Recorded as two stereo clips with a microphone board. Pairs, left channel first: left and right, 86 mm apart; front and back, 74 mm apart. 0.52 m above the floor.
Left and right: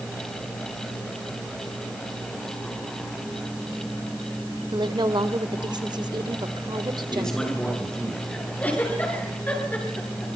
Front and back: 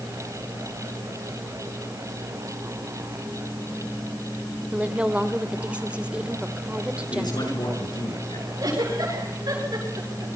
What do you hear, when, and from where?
4.7 s a woman speaking: 110° right, 1.7 m
7.1 s a man speaking: 5° left, 8 m
8.6 s a giggle: 160° left, 8 m